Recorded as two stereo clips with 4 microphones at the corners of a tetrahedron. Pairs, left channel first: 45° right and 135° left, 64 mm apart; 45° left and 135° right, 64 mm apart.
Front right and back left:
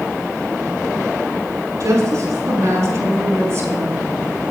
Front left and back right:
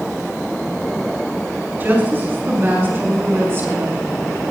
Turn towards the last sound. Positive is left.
turn(degrees=180)